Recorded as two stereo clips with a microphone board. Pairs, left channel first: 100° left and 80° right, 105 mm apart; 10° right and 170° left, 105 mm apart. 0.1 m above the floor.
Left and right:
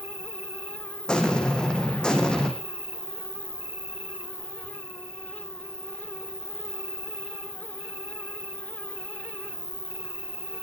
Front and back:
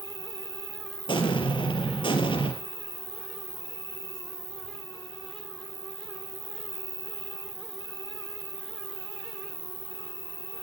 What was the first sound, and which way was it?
An insect, 20° right.